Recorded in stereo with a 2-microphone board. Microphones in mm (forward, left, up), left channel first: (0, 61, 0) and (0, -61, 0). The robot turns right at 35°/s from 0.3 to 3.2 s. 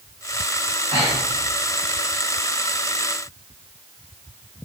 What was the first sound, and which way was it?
Breathing, 55° right (ahead or behind).